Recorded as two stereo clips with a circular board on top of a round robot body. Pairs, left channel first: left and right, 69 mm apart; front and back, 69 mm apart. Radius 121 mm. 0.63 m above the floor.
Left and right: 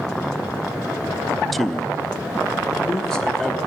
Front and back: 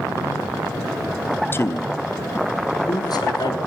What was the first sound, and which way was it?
A man speaking, 5° left.